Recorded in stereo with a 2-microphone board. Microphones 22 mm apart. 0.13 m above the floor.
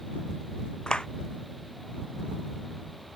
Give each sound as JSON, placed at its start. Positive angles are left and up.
{"t": 0.9, "sound": "a clap", "side_deg": 45}